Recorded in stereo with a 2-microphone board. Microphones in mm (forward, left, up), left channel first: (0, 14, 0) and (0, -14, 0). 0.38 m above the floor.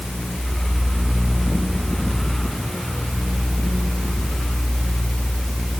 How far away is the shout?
No shout in this recording.